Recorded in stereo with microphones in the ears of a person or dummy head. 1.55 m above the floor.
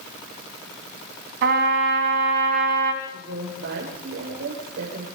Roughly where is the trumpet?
Right.